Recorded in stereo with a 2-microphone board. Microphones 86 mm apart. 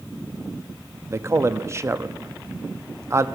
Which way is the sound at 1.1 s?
30° right (ahead or behind).